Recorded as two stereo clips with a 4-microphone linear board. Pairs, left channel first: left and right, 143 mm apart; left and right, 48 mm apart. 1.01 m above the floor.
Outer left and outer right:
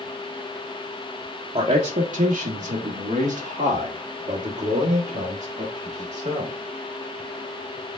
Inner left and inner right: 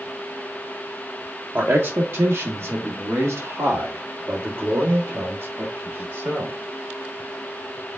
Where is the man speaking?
50° right (ahead or behind), 0.7 m.